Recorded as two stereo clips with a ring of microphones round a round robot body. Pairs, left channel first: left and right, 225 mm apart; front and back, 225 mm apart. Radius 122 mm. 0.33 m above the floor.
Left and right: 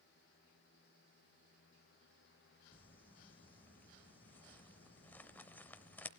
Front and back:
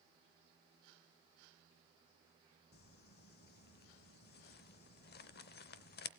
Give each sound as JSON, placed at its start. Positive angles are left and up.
{"t": 2.7, "sound": "crumpling", "azimuth_deg": 10, "distance_m": 0.7}